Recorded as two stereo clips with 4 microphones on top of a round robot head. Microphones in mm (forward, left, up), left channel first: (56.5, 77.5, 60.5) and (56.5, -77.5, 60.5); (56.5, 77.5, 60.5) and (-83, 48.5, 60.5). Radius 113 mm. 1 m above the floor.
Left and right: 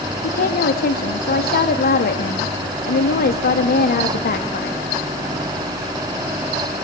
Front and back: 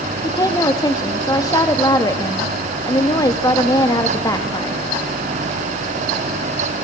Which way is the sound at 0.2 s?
75° left.